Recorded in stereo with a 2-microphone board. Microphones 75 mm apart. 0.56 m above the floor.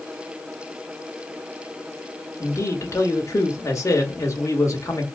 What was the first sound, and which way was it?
A man speaking, 45° left (ahead or behind).